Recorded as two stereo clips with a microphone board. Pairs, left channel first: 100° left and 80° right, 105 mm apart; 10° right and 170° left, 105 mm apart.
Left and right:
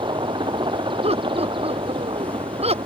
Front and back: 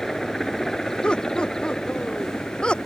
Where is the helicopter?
95° right; by 2.9 s 90° right.